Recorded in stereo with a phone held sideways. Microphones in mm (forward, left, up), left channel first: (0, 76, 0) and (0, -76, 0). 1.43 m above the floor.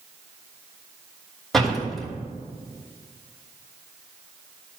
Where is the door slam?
Centre (ahead or behind), 3 m.